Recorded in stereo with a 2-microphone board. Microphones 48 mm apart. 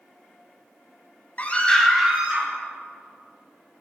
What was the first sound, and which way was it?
A scream, 35° left (ahead or behind).